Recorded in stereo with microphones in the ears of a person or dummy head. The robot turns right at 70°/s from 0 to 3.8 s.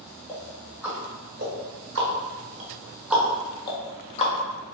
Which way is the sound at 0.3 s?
20° left (ahead or behind).